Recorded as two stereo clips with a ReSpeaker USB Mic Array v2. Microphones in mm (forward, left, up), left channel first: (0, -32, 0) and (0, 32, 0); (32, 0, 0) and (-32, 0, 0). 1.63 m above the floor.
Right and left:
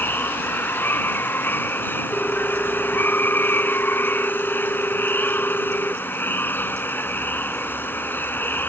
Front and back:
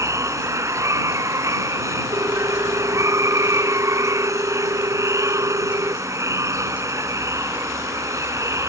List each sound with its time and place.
0.0 s running water: 145° right
2.1 s a ringtone: 160° right